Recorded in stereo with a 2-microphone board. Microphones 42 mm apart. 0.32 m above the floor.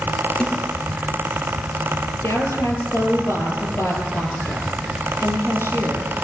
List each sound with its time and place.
0.4 s a snare drum: 20° left (ahead or behind), 6 m
2.2 s a woman speaking: 80° left, 8.5 m